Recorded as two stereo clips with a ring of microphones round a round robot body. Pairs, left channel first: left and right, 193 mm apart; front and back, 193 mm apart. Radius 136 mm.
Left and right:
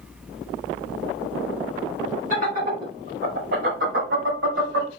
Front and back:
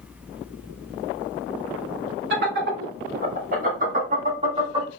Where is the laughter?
150° right, 3 m; by 4.9 s 110° right, 2 m.